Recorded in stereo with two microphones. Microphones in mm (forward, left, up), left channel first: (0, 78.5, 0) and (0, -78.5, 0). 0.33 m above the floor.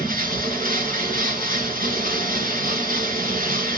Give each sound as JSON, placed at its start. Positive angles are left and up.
{"t": 0.0, "sound": "running water", "side_deg": -70, "distance_m": 3.5}